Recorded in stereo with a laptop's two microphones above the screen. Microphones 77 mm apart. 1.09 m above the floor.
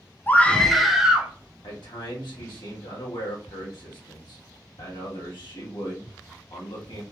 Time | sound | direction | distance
0.3 | a scream | 25° left (ahead or behind) | 0.6 m
1.6 | a man speaking | 70° left (ahead or behind) | 1.2 m